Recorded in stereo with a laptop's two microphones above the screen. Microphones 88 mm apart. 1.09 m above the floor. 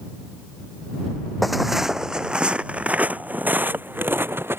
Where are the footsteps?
Centre (ahead or behind); by 4.6 s 25° right (ahead or behind).